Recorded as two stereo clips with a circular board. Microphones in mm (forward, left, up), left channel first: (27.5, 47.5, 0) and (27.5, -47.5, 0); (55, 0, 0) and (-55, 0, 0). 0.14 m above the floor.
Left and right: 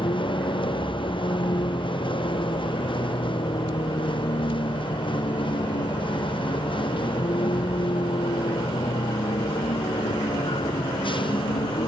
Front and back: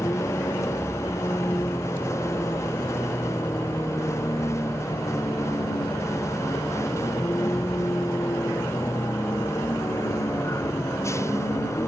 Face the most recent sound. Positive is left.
turn(degrees=65)